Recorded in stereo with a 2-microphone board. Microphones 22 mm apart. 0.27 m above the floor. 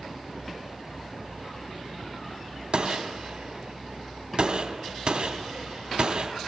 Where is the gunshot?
55° right (ahead or behind), 1.1 m.